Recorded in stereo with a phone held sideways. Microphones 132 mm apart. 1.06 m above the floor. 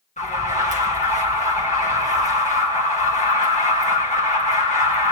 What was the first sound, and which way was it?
An alarm, 65° left (ahead or behind).